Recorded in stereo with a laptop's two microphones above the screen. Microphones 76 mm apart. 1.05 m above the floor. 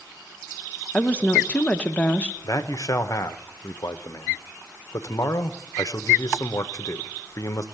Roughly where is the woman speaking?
Centre.